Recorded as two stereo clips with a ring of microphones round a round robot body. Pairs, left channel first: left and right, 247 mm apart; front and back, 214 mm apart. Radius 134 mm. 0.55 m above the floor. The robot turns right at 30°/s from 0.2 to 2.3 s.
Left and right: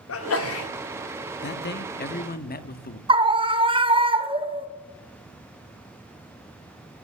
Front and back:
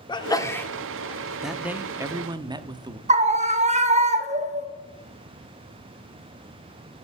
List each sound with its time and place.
0.1 s a sneeze: 70° left, 1.2 m; by 0.7 s 85° left, 1.2 m
1.4 s a man speaking: 90° left, 0.7 m; by 3.0 s 120° left, 0.7 m
3.1 s a scream: 145° right, 1.0 m